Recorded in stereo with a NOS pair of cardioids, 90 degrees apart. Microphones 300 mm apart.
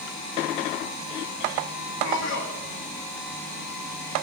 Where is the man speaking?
65° left, 3 m.